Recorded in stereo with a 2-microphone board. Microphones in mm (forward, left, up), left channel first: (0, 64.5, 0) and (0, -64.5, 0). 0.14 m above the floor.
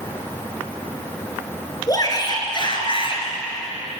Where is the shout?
25° left (ahead or behind), 2.5 m; by 3.2 s 45° left (ahead or behind), 2.5 m.